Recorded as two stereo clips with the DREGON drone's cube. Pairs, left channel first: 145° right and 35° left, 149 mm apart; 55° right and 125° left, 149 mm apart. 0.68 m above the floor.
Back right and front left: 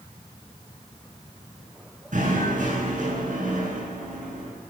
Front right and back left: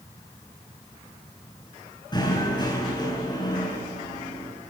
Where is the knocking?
5° left, 8.5 m.